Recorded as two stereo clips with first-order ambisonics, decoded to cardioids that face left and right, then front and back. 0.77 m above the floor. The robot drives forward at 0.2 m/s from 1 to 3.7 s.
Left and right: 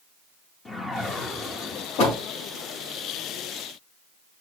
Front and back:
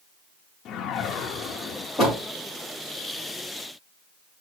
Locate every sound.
0.7 s a whoosh: 20° left, 0.7 m; by 1.9 s 30° left, 0.6 m
2.0 s a door slam: 85° left, 6 m